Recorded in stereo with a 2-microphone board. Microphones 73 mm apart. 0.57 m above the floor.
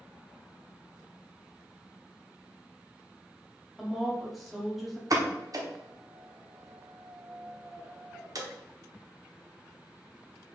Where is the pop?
55° right (ahead or behind), 0.7 m.